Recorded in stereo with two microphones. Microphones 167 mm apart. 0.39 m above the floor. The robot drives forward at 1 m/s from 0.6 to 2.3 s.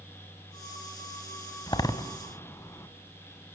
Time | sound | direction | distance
1.7 | a door slam | 25° left (ahead or behind) | 1.7 m